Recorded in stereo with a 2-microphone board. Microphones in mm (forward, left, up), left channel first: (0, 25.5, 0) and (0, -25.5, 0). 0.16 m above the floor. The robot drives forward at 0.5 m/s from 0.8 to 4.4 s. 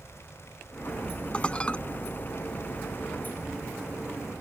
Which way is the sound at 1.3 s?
20° left (ahead or behind).